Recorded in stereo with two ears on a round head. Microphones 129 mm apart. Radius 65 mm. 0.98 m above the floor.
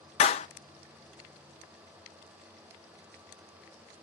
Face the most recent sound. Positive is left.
turn(degrees=45)  # may be behind; listen again after turning